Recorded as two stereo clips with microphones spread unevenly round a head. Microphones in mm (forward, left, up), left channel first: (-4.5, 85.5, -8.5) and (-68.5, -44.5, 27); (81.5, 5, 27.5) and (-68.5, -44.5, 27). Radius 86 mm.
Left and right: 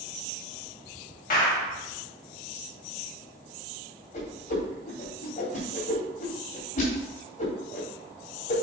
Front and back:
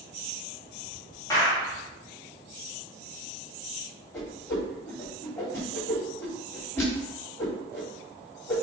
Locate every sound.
1.3 s a clap: 90° left, 2.0 m
4.1 s a whoosh: 95° left, 3 m